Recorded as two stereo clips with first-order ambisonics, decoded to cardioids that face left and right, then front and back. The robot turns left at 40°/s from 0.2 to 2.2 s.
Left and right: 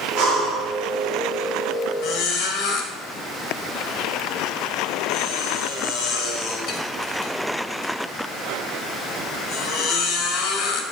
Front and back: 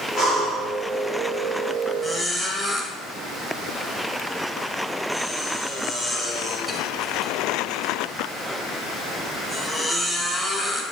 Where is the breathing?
105° right, 4.5 m; by 0.7 s 125° right, 4.5 m.